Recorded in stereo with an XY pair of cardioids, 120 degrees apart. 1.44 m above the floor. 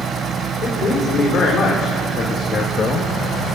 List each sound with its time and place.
0.6 s a man speaking: 45° left, 5 m